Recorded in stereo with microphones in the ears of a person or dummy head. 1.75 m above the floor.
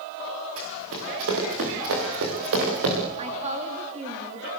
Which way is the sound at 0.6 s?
80° right.